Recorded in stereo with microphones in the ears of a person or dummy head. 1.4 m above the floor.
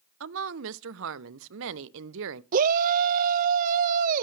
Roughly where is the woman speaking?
Right.